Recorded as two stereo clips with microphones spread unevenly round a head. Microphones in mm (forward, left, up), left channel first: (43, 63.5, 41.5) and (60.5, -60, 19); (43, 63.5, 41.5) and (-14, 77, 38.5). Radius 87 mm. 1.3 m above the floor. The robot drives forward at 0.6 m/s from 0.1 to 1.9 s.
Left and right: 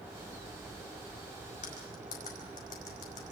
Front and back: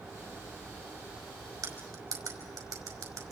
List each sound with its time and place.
1.6 s cutlery clinking: 145° left, 5 m